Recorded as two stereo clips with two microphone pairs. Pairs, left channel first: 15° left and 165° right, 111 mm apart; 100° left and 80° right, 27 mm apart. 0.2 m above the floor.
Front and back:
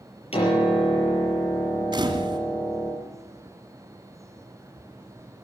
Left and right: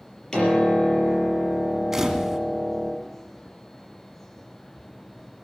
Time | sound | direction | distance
0.3 | a piano | 35° left | 6 m
1.9 | a camera shutter | 150° right | 2 m